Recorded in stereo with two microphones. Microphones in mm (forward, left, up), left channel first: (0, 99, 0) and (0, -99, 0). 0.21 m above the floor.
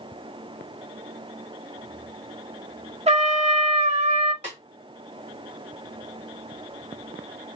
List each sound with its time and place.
3.1 s a trumpet: 30° right (ahead or behind), 0.7 m
4.4 s a snare drum: 35° right (ahead or behind), 2.5 m